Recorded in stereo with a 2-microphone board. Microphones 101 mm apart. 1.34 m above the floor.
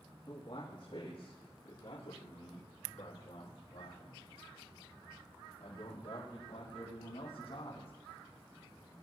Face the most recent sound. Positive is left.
turn(degrees=65)  # may be behind; listen again after turning